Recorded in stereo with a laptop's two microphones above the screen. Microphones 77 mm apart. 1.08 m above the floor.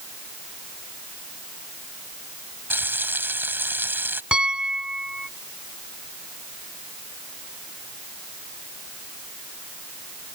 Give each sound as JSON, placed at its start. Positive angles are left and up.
{"t": 2.7, "sound": "frying", "side_deg": -25}
{"t": 4.3, "sound": "a piano", "side_deg": -10}